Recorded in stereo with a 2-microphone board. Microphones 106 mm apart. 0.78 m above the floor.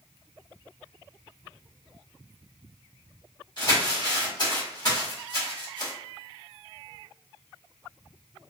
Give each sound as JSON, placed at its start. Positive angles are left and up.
{"t": 3.6, "sound": "crumpling", "side_deg": 40, "distance_m": 1.2}